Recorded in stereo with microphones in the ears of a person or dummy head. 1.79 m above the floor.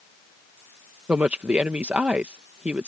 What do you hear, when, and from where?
1.1 s a woman speaking: 10° right (ahead or behind)